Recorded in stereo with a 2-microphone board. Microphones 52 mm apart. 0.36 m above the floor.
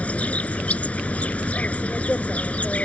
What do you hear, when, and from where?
0.0 s an insect: 30° left (ahead or behind)